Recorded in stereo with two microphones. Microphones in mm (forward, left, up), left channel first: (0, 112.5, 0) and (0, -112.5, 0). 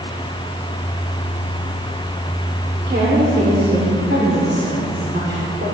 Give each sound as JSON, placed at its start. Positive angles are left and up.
{"t": 2.9, "sound": "a woman speaking", "side_deg": -55, "distance_m": 2.5}